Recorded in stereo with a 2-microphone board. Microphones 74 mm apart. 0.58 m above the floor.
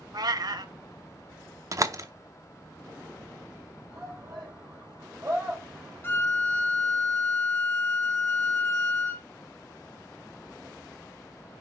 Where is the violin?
30° left (ahead or behind), 0.8 m.